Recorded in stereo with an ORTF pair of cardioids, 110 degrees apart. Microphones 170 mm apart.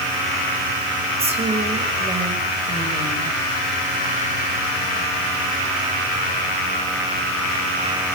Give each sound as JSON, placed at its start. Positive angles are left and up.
{"t": 1.2, "sound": "a woman speaking", "azimuth_deg": -35, "distance_m": 6.0}